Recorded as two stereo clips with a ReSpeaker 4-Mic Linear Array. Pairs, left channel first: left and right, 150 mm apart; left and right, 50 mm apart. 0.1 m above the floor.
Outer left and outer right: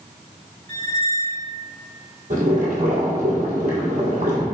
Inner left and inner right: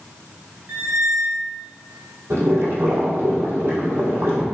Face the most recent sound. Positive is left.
turn(degrees=-65)  # may be behind; listen again after turning